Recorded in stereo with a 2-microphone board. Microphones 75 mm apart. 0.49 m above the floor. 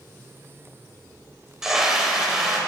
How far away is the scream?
About 2.5 m.